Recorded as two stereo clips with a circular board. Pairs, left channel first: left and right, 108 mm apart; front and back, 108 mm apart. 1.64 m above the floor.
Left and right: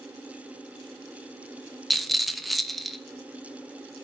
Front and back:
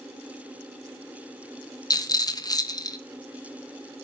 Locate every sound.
1.9 s a rattle: straight ahead, 0.9 m